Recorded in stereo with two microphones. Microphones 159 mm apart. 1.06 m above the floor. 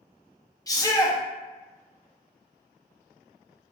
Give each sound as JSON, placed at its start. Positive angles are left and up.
{"t": 0.7, "sound": "a shout", "side_deg": 20, "distance_m": 0.5}